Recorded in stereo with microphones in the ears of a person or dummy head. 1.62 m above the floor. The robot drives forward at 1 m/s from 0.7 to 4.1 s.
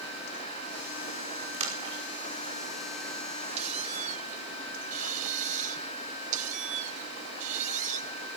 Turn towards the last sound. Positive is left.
turn(degrees=-45)  # may be behind; listen again after turning